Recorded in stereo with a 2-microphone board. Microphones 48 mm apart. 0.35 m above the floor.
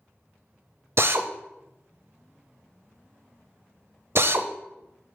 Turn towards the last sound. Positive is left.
turn(degrees=-55)  # may be behind; listen again after turning